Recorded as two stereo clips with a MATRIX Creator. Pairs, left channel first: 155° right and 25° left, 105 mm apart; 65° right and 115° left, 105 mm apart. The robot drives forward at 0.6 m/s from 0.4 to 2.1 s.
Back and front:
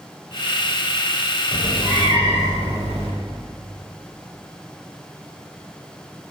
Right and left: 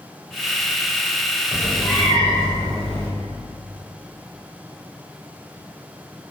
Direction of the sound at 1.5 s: 145° right.